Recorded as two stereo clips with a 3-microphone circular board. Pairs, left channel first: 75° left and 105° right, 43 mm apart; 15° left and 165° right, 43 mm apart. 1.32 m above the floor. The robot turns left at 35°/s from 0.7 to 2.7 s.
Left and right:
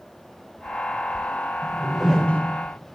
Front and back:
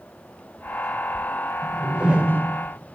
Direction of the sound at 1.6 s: 175° right.